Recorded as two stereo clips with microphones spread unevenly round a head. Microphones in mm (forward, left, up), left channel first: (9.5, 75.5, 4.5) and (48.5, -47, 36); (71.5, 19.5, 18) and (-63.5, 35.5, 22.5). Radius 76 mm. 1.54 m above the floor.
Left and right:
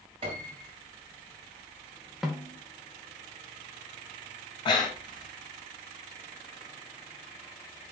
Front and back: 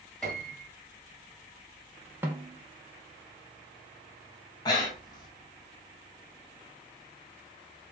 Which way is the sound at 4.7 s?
50° left.